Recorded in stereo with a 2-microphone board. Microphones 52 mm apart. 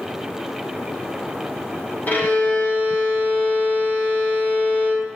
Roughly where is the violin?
Left.